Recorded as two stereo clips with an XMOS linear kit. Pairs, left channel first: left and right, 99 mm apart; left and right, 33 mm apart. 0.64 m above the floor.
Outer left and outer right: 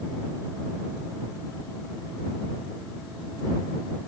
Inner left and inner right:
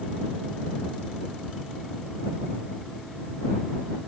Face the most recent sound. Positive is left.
No sound to turn to.